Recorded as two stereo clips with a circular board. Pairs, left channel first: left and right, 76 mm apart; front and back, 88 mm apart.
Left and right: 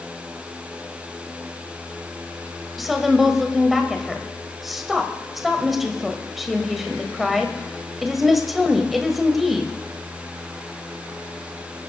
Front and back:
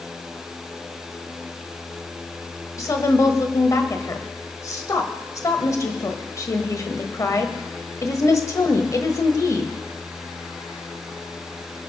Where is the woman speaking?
5° right, 1.4 m.